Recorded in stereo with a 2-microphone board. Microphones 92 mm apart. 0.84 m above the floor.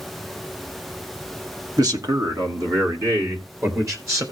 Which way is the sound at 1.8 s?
45° right (ahead or behind).